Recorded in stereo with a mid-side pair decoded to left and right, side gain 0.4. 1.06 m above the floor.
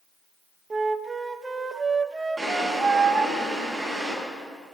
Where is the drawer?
15° right, 6.5 m.